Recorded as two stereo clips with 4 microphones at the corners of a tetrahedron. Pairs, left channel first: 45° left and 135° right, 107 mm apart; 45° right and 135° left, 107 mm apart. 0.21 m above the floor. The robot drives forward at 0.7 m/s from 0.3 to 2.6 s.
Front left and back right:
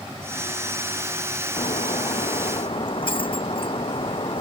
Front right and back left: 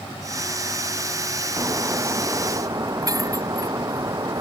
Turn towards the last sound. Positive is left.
turn(degrees=80)